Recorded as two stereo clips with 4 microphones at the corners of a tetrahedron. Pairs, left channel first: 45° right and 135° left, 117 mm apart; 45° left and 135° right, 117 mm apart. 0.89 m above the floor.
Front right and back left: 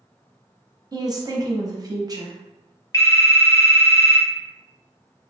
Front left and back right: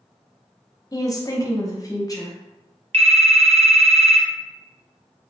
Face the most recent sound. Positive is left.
turn(degrees=-105)